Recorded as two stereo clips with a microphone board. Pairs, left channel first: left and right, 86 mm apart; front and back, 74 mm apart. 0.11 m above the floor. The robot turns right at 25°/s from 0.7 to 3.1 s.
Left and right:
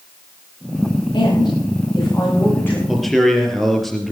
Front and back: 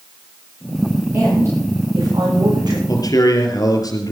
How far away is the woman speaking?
About 9.5 m.